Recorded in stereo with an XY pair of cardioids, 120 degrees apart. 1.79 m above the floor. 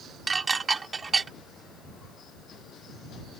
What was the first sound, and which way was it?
Dishes clattering, 25° right.